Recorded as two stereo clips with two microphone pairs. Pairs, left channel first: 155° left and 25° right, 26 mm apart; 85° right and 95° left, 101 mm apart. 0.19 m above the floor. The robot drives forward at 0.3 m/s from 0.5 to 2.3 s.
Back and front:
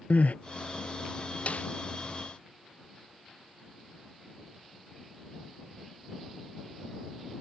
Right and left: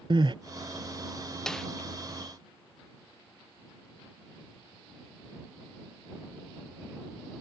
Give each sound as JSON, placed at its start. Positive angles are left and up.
{"t": 0.1, "sound": "crying", "azimuth_deg": 135}
{"t": 1.5, "sound": "a snare drum", "azimuth_deg": -170}